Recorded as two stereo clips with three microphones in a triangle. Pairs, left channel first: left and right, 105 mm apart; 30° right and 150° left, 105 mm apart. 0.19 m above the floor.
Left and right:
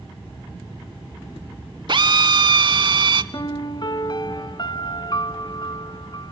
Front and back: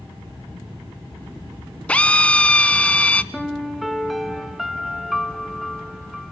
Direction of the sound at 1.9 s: 105° right.